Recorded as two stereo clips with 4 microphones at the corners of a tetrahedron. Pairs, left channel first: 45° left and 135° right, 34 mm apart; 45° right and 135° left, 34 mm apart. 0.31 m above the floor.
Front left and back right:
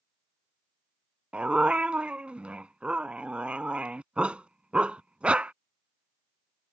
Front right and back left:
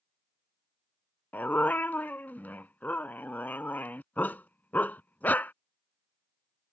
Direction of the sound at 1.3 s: 80° right.